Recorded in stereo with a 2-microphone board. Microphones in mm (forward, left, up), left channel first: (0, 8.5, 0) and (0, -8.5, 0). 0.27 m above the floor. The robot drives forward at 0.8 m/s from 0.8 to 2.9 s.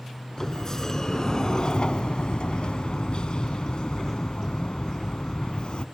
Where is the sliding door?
35° left (ahead or behind), 1.6 m; by 5.8 s 55° left (ahead or behind), 1.1 m.